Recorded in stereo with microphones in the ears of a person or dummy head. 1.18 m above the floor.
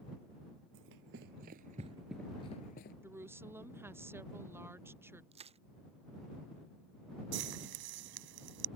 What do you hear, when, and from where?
0.7 s running footsteps: 50° right (ahead or behind); by 2.9 s 30° left (ahead or behind)
3.0 s a woman speaking: 15° right (ahead or behind)
5.3 s crushing: 30° right (ahead or behind)
7.3 s frying: 60° right (ahead or behind)